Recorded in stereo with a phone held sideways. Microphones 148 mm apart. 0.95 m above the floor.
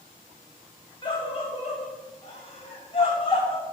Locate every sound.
1.0 s a scream: 30° left (ahead or behind), 1.2 m; by 3.6 s 35° left (ahead or behind), 1.9 m